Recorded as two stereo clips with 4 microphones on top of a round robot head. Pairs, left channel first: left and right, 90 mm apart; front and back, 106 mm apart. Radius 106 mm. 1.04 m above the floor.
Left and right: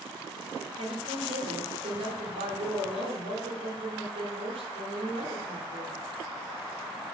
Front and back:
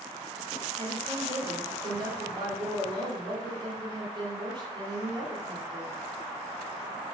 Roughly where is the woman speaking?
Behind right.